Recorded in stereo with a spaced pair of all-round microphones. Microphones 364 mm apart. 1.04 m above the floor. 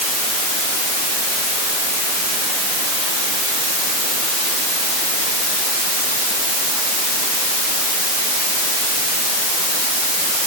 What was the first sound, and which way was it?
Only background noise.